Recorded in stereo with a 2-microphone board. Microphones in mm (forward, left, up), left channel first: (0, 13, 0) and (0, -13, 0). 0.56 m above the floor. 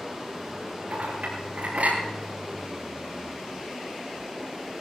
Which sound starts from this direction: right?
A clink, at 0.9 s.